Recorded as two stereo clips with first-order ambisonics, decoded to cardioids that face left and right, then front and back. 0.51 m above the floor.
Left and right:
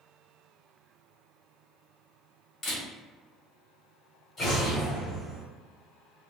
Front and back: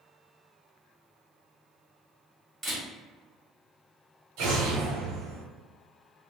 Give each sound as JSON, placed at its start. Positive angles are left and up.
{"t": 2.6, "sound": "a camera shutter", "azimuth_deg": 130, "distance_m": 1.3}
{"t": 4.4, "sound": "an explosion", "azimuth_deg": 165, "distance_m": 0.9}